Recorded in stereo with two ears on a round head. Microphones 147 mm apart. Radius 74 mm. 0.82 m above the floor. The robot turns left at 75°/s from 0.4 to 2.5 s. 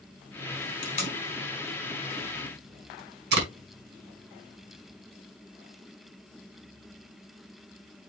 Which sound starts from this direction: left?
Tape being pulled, at 0.8 s.